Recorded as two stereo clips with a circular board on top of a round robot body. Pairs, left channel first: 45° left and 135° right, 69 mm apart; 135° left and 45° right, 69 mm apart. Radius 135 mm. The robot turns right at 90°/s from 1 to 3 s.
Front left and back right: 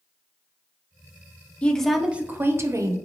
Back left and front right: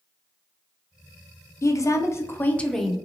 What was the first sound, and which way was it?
A woman speaking, 110° left.